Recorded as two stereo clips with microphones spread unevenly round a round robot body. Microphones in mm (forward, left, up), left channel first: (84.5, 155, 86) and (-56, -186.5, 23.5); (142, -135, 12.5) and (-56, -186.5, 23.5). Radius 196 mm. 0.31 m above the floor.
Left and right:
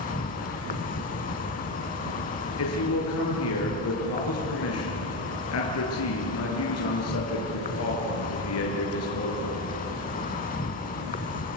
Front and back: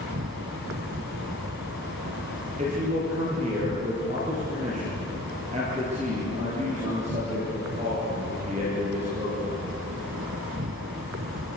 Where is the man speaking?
120° left, 6 m.